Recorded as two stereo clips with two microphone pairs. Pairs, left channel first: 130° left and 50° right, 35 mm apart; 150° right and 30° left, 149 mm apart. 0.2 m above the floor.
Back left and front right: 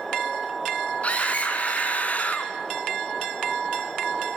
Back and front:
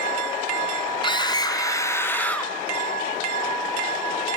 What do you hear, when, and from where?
1.0 s a scream: 160° left, 2.5 m; by 2.5 s 130° left, 2 m